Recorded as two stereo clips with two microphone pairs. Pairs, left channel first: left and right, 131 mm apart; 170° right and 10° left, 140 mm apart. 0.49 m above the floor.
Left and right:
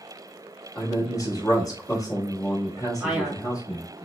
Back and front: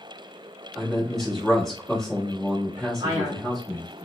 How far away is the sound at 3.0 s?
About 1.3 m.